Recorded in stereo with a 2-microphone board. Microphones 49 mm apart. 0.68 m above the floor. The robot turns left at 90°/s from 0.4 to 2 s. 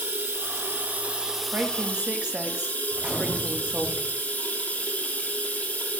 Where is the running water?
80° right, 1.2 m; by 6.0 s 135° left, 1.2 m.